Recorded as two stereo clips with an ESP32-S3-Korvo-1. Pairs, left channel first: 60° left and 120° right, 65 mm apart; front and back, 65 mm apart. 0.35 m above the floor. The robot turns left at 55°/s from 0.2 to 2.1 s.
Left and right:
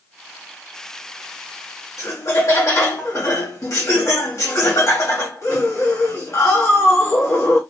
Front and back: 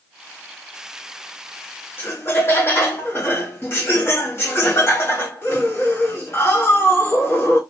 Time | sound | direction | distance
2.0 | laughter | 50° left | 1.8 m